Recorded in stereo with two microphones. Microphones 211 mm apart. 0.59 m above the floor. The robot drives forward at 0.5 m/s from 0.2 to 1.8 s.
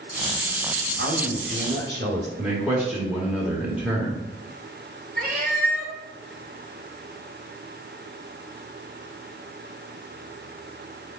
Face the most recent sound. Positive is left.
turn(degrees=-45)  # may be behind; listen again after turning